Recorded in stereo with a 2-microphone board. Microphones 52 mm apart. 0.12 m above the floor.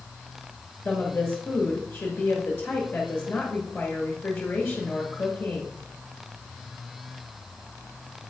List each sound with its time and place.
0.8 s a woman speaking: 35° left (ahead or behind), 1.9 m